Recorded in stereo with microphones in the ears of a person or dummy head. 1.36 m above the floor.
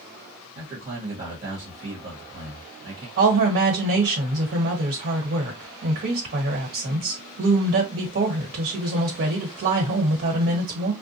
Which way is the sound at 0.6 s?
30° right (ahead or behind).